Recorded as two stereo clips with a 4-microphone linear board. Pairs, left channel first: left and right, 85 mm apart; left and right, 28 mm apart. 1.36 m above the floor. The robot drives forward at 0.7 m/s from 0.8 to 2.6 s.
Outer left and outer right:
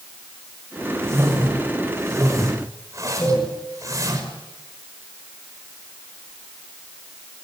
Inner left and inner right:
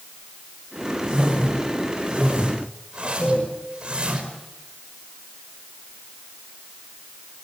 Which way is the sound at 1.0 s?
35° right (ahead or behind).